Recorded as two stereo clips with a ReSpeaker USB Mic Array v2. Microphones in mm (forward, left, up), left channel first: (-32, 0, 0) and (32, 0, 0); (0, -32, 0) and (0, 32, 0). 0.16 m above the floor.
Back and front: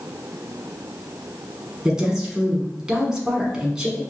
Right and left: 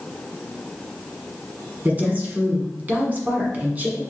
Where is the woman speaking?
70° left, 1.2 m.